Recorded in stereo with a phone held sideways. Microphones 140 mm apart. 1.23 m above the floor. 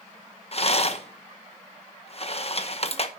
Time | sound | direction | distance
0.5 | a rattle | 45° left (ahead or behind) | 0.9 m